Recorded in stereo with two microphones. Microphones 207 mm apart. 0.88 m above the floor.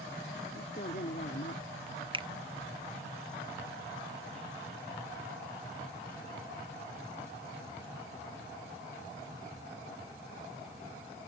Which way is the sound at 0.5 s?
45° left (ahead or behind).